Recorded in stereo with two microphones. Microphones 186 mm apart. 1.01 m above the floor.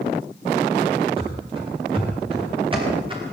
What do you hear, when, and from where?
1.2 s running footsteps: 30° right (ahead or behind), 9.5 m